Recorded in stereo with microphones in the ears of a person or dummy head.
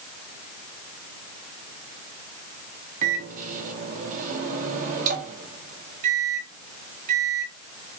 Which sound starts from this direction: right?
A microwave, at 3.0 s.